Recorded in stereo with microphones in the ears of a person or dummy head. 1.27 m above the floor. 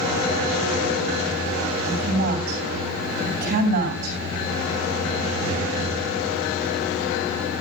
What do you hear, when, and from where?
1.9 s a woman speaking: 50° right (ahead or behind), 9.5 m